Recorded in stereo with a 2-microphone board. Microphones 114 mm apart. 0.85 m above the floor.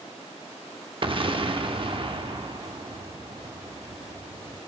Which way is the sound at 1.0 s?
50° right (ahead or behind).